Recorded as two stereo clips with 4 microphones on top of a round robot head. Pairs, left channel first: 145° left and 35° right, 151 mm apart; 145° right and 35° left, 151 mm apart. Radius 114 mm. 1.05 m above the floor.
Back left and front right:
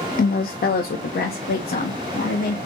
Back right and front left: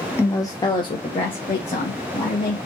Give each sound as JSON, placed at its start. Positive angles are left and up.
{"t": 0.2, "sound": "a woman speaking", "azimuth_deg": 140, "distance_m": 0.7}